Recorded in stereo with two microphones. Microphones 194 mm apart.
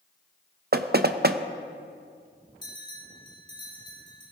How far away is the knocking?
About 0.6 m.